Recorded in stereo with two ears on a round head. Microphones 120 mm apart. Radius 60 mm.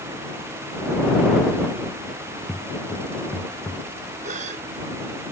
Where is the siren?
I don't hear a siren.